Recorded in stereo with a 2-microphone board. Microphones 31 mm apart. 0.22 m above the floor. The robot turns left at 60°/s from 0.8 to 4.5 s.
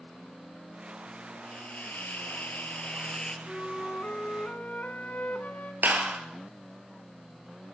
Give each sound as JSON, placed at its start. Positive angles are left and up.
{"t": 1.4, "sound": "a hiss", "azimuth_deg": 140, "distance_m": 3.0}
{"t": 3.5, "sound": "a flute", "azimuth_deg": 155, "distance_m": 1.8}
{"t": 5.8, "sound": "a clap", "side_deg": -75, "distance_m": 3.0}